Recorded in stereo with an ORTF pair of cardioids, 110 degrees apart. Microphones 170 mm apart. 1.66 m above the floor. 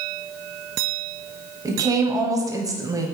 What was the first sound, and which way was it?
A woman speaking, 20° right.